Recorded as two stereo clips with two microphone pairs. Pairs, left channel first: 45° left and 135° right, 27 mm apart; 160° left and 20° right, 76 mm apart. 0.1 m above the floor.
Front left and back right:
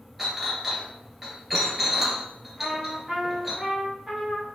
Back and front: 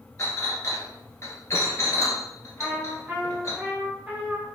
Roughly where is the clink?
Behind left.